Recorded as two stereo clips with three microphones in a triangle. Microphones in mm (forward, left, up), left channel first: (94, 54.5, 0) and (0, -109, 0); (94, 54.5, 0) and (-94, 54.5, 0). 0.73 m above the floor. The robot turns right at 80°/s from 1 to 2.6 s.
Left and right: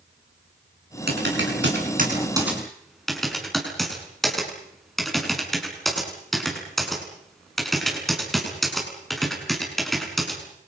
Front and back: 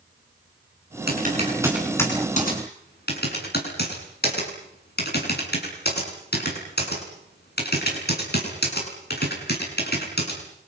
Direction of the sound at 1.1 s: 150° right.